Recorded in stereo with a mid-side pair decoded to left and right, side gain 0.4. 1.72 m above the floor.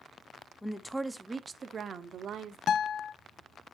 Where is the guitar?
65° left, 0.6 m.